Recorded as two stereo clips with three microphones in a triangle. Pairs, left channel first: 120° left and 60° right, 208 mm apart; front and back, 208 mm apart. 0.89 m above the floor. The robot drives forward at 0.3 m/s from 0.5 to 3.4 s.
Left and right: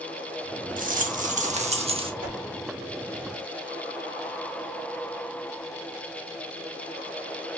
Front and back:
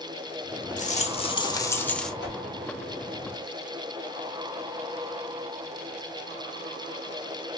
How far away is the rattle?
About 0.7 m.